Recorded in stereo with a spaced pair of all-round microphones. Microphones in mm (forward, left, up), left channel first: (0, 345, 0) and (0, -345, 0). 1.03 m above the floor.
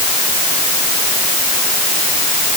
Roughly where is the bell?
I don't hear a bell.